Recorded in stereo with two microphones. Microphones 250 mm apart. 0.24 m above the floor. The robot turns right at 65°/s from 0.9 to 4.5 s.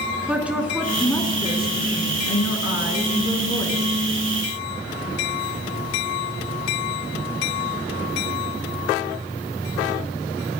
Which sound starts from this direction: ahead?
A woman speaking, at 0.3 s.